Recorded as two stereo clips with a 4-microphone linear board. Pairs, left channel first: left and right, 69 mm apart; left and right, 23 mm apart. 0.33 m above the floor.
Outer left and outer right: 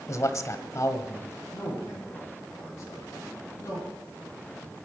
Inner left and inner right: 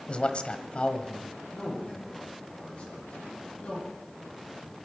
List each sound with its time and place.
0.1 s a man speaking: 50° left (ahead or behind), 1.5 m
1.5 s a man speaking: 40° left (ahead or behind), 10 m